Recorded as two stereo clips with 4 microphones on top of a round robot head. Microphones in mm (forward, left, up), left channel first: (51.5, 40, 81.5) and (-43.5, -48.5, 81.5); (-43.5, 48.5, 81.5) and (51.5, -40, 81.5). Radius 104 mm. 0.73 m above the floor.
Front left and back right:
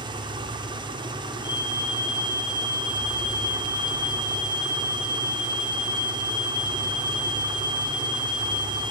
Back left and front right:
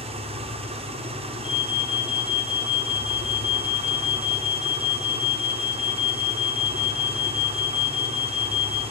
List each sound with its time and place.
0.0 s an engine running: 85° right, 2 m
1.4 s an alarm: 95° left, 2.5 m